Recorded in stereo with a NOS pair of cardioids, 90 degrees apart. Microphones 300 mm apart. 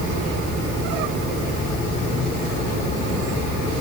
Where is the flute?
I don't hear a flute.